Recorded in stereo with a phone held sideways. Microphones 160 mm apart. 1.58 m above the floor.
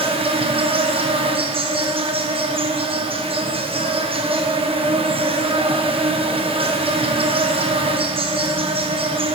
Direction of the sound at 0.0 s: 35° right (ahead or behind).